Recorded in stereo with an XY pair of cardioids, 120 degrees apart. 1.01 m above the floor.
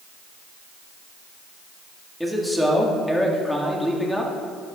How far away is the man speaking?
About 2 m.